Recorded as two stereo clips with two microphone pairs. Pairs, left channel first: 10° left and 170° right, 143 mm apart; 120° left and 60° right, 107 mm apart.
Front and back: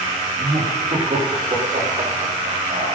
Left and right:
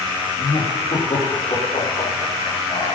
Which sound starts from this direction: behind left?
Laughter, at 0.4 s.